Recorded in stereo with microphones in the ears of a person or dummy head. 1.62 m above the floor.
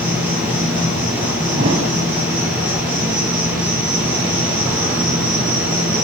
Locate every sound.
0.0 s an insect: 15° right (ahead or behind), 3.5 m
1.6 s a thud: 25° right (ahead or behind), 1.6 m